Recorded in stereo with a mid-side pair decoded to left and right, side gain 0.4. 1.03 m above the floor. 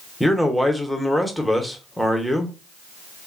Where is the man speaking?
Straight ahead, 0.8 m.